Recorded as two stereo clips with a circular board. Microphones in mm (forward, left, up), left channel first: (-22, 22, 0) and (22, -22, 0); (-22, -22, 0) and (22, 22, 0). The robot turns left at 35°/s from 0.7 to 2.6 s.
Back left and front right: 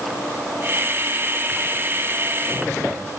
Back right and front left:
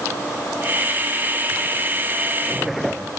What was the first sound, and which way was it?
Only background noise.